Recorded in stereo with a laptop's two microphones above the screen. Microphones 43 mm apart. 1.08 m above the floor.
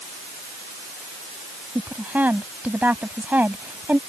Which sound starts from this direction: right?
A woman speaking, at 1.8 s.